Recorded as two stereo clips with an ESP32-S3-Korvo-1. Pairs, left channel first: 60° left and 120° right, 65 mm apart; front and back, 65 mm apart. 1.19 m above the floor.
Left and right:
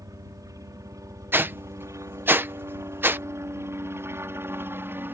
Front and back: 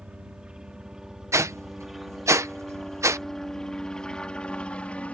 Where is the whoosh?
165° right.